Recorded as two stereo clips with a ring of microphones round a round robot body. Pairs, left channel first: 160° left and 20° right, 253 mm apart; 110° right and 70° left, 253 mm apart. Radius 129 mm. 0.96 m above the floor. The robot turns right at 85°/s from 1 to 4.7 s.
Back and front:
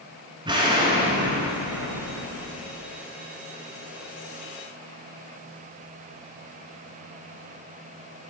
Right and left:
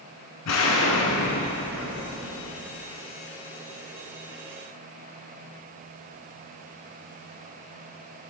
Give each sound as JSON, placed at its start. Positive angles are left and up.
{"t": 0.5, "sound": "an explosion", "azimuth_deg": -95, "distance_m": 1.6}